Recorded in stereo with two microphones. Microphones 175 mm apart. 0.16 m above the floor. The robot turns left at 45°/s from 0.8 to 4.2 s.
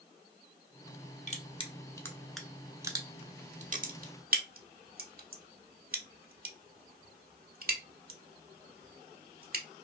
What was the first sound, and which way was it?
Crushing, 40° left (ahead or behind).